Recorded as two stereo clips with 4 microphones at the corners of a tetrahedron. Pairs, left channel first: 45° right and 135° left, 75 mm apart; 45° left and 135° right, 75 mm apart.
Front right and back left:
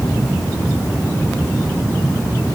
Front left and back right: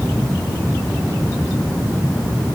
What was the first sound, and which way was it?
Only background noise.